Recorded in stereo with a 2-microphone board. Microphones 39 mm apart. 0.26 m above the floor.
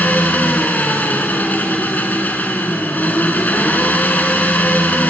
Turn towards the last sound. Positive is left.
turn(degrees=50)  # may be behind; listen again after turning